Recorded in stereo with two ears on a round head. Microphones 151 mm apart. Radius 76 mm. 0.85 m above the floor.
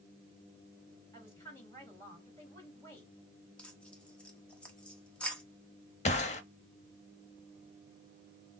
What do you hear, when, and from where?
1.1 s a woman speaking: 20° left (ahead or behind), 3.5 m
3.6 s tearing paper: 5° left (ahead or behind), 1.0 m
6.0 s a gunshot: 40° left (ahead or behind), 0.7 m